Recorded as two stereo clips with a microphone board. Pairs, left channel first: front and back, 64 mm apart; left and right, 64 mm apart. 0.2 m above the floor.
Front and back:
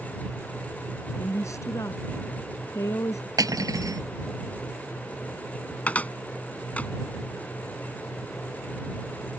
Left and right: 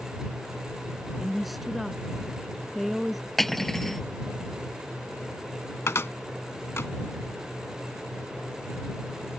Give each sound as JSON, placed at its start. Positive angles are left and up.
{"t": 1.2, "sound": "a woman speaking", "azimuth_deg": 0}
{"t": 3.4, "sound": "cutlery clinking", "azimuth_deg": 175}
{"t": 5.9, "sound": "a cupboard door", "azimuth_deg": 60}